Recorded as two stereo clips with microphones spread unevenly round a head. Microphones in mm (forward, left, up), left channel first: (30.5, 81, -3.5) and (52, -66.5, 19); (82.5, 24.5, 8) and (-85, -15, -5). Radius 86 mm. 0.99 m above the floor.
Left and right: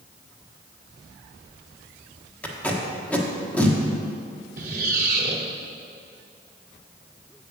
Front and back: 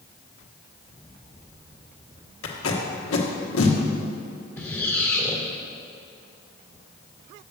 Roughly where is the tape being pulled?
Ahead.